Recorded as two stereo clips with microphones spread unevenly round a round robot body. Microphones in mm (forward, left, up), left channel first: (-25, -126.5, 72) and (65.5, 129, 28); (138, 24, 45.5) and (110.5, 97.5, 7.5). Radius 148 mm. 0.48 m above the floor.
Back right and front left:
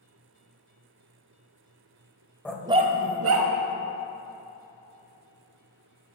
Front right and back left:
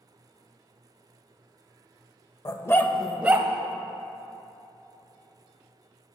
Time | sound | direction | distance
2.5 | a dog barking | 25° right | 0.7 m